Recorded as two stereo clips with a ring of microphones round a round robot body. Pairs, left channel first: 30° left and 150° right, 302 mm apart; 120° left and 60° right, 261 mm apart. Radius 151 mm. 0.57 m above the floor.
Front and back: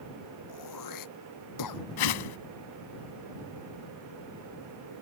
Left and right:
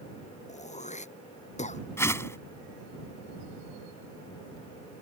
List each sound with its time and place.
0.5 s throat clearing: 55° left
2.0 s a whoosh: 40° left